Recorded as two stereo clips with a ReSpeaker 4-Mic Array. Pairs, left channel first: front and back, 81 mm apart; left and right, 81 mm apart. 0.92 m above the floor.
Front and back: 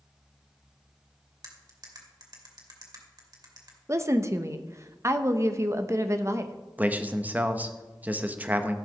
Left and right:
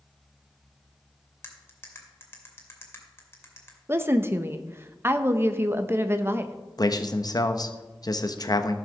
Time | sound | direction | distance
1.4 | cutlery clinking | 150° left | 2.5 m
3.9 | a woman speaking | 145° right | 0.9 m
6.8 | a man speaking | 115° left | 0.9 m